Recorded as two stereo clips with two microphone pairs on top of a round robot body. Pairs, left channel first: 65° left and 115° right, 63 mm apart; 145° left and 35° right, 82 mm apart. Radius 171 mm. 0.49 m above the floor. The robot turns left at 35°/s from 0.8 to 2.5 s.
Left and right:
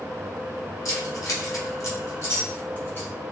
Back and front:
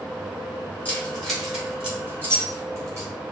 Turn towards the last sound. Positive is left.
turn(degrees=15)